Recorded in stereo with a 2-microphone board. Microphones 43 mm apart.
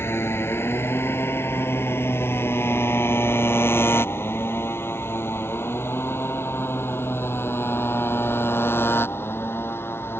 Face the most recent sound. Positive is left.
turn(degrees=65)  # may be behind; listen again after turning